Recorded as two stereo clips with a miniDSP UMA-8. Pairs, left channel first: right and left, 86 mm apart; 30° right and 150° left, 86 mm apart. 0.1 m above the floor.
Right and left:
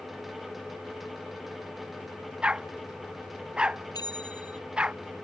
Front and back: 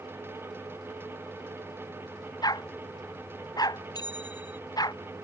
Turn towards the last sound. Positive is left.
turn(degrees=-60)